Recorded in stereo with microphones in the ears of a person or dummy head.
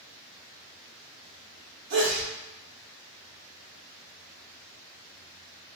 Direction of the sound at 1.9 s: 60° right (ahead or behind).